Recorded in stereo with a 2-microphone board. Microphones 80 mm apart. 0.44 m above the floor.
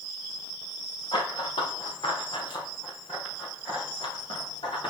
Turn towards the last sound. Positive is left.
turn(degrees=75)  # may be behind; listen again after turning